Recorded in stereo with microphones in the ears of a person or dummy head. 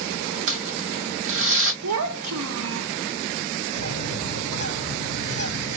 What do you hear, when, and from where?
0.5 s crumpling: 60° right (ahead or behind), 0.8 m
1.8 s a child speaking: 70° right (ahead or behind), 0.6 m
3.8 s a bird: 40° right (ahead or behind), 3 m